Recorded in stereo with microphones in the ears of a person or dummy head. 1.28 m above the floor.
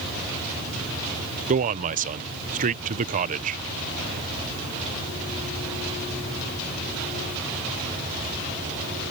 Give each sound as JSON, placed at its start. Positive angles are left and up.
{"t": 1.5, "sound": "a man speaking", "side_deg": -40}